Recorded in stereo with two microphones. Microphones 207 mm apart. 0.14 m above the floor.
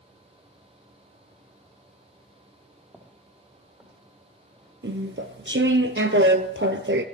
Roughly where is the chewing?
Right.